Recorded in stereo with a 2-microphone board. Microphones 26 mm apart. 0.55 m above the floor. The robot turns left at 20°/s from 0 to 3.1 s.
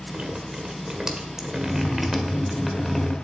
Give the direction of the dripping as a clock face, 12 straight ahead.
4 o'clock.